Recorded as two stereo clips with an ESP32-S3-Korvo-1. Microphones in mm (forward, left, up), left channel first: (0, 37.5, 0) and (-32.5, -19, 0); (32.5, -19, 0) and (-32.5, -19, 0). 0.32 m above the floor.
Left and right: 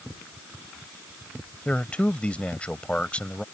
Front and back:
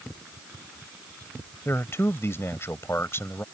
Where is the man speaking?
Straight ahead.